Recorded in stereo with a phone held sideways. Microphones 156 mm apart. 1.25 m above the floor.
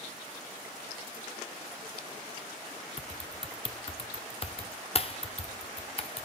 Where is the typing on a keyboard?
40° left (ahead or behind), 0.8 m.